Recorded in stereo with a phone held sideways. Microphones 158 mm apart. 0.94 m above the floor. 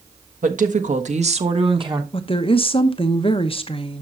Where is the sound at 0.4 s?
60° right (ahead or behind), 1.4 m; by 2.0 s 30° right (ahead or behind), 1.1 m.